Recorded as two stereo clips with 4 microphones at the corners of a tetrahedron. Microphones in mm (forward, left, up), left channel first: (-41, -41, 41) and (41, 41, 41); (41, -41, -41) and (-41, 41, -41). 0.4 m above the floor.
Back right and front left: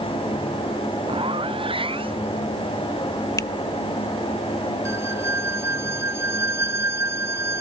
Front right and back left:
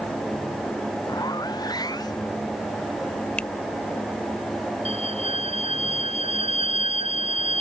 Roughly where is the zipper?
Ahead.